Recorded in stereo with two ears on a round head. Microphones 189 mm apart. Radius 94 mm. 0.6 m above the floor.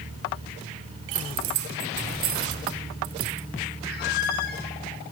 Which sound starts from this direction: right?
Keys jangling, at 1.1 s.